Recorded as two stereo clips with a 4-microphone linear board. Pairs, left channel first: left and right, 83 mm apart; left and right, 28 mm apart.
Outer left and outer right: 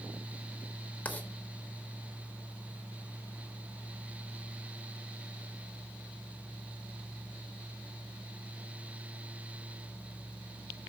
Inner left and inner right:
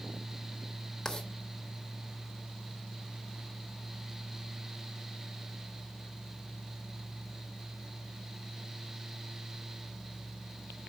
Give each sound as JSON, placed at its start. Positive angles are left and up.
{"t": 1.1, "sound": "writing", "side_deg": 20, "distance_m": 1.0}